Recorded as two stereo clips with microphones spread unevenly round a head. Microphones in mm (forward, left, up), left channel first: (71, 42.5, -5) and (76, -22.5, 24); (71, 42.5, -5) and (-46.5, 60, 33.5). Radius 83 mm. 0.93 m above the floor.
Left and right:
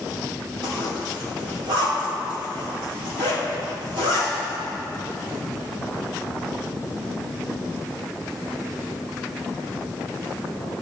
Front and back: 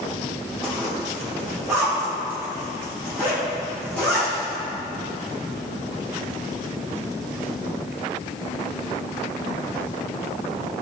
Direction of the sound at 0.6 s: 105° right.